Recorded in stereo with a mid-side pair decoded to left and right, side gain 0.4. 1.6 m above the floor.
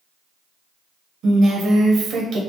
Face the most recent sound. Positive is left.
turn(degrees=-70)